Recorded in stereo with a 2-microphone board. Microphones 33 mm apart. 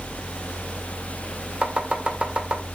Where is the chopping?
35° right (ahead or behind), 1.7 m.